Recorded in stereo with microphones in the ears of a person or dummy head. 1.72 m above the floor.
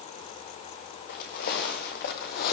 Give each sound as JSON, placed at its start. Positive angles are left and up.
{"t": 1.1, "sound": "footsteps", "side_deg": 55, "distance_m": 4.5}